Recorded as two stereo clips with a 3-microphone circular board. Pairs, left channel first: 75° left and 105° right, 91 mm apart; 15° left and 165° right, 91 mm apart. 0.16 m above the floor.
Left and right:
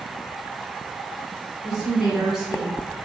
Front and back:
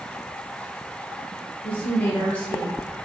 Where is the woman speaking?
25° right, 1.7 m.